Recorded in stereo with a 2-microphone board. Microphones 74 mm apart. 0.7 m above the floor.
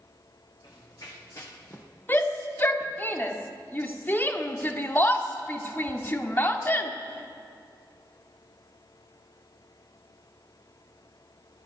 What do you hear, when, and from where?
0.6 s running footsteps: 60° left (ahead or behind), 3 m; by 1.9 s 25° left (ahead or behind), 1.8 m
2.1 s a shout: 25° left (ahead or behind), 1.5 m